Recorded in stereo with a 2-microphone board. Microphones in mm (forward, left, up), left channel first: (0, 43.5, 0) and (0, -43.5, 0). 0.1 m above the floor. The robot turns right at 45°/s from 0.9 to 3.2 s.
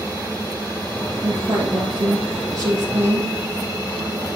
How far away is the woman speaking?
About 2 m.